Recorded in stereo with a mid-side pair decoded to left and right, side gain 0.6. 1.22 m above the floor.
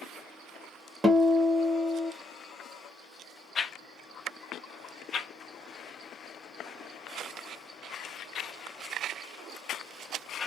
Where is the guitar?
10° right, 1.0 m.